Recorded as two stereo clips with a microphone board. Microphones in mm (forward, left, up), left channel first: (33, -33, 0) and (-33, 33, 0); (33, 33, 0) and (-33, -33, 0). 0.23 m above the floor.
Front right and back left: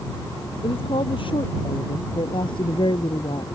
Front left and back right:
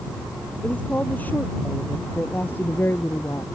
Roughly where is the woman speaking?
Ahead right.